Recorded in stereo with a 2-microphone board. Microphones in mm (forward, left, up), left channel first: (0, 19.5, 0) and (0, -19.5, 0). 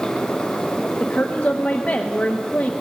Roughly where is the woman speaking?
Left.